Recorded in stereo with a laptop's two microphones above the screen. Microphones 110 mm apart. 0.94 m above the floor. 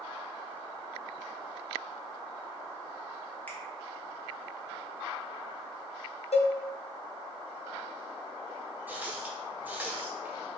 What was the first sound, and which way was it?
A finger snap, 15° left (ahead or behind).